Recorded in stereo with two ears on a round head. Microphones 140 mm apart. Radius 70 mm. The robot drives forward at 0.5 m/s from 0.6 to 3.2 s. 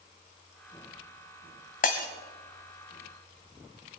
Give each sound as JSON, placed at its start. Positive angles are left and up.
{"t": 1.8, "sound": "breaking glass", "side_deg": 55, "distance_m": 1.7}